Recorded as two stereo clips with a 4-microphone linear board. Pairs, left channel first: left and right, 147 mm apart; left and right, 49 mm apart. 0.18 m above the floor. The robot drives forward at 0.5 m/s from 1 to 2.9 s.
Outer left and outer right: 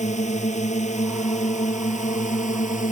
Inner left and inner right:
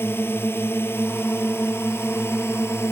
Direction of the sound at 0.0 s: 55° left (ahead or behind).